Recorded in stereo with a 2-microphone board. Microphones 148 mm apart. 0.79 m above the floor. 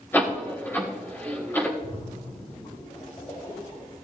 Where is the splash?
35° left (ahead or behind), 5 m.